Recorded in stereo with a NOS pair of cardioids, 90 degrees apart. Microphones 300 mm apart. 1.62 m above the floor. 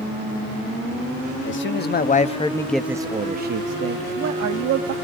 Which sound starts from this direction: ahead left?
A man speaking, at 1.4 s.